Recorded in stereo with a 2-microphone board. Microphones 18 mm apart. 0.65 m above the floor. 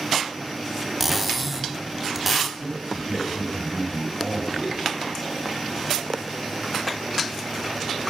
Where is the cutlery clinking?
10° right (ahead or behind), 0.7 m.